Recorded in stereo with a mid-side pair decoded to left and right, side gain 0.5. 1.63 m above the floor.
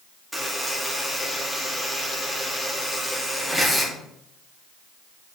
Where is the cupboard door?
No cupboard door in this recording.